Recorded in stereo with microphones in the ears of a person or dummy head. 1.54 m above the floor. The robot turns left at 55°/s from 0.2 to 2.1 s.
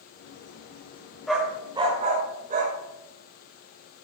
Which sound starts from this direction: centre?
A dog barking, at 1.3 s.